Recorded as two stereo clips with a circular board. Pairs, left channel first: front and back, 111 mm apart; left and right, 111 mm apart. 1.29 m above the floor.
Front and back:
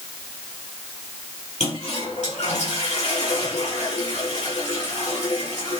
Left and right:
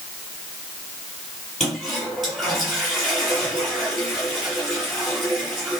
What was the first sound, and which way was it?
A toilet flushing, straight ahead.